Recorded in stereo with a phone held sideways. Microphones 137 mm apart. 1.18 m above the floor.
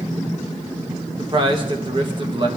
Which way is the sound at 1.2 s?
35° right (ahead or behind).